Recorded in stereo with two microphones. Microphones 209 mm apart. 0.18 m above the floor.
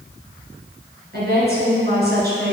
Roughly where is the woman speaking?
Right.